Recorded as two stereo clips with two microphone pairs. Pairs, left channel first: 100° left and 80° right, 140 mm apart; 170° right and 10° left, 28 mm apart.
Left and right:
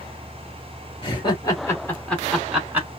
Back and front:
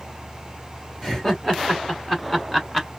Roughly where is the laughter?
Behind left.